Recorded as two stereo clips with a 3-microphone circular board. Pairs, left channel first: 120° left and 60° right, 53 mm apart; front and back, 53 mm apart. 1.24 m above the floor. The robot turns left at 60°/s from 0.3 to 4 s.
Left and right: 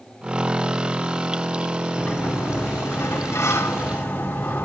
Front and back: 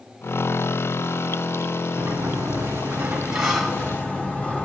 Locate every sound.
2.0 s a sliding door: 175° right, 3 m; by 4.7 s 60° left, 3 m